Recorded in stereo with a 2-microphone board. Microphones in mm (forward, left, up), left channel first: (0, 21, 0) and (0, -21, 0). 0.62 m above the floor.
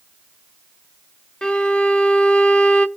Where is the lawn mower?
No lawn mower in this recording.